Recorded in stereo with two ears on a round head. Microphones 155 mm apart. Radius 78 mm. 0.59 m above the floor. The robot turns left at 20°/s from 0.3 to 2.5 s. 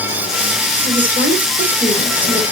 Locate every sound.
0.8 s a woman speaking: 115° right, 1.7 m; by 2.4 s 150° right, 1.7 m